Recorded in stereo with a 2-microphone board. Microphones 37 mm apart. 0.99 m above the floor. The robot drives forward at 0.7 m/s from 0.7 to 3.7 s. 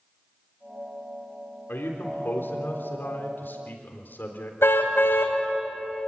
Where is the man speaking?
80° left, 3.5 m; by 4.5 s 65° left (ahead or behind), 4 m.